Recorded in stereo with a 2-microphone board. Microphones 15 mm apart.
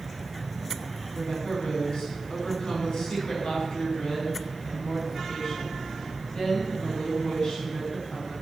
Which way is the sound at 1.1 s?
80° left.